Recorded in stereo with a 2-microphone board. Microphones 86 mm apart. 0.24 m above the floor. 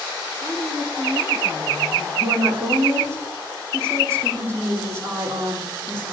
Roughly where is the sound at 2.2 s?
Right.